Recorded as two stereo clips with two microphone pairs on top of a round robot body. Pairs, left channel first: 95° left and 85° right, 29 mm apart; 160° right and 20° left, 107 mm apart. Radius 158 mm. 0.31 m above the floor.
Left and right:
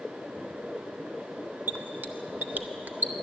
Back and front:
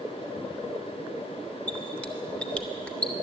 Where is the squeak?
80° right, 0.5 m.